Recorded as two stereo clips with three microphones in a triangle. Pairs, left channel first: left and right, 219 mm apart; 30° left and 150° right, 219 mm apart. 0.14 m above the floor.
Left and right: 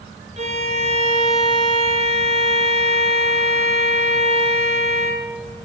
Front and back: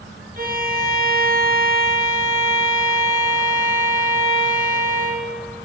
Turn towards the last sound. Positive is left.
turn(degrees=-135)